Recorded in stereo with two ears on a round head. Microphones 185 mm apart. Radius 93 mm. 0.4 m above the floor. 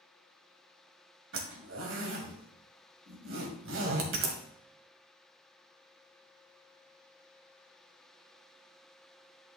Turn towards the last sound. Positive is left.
turn(degrees=-65)  # may be behind; listen again after turning